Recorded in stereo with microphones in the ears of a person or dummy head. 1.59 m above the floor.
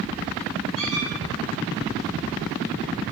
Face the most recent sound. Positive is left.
turn(degrees=30)  # may be behind; listen again after turning